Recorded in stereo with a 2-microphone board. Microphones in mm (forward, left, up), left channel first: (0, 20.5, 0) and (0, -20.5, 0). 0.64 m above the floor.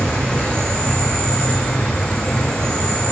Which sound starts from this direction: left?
An insect, at 0.0 s.